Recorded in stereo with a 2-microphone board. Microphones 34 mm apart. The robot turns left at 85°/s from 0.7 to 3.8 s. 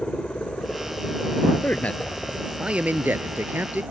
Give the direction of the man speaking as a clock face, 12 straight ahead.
10 o'clock.